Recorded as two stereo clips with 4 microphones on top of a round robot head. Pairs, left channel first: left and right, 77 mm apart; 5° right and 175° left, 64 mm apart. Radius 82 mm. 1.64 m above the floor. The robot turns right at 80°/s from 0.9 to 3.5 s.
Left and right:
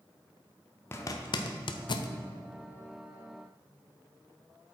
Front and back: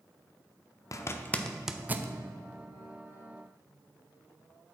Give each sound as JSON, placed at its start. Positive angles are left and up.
{"t": 0.9, "sound": "a zipper", "azimuth_deg": 30, "distance_m": 0.7}